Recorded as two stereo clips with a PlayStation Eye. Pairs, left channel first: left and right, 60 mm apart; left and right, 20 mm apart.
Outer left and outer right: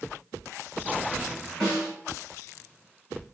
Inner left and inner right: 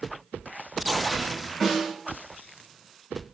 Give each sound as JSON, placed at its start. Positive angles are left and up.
{"t": 1.6, "sound": "a snare drum", "side_deg": -15, "distance_m": 3.0}